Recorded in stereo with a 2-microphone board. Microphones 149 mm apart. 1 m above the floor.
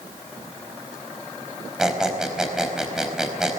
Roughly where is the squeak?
Centre.